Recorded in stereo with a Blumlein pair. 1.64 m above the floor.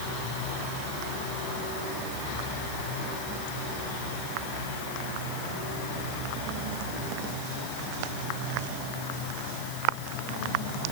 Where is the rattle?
I don't hear a rattle.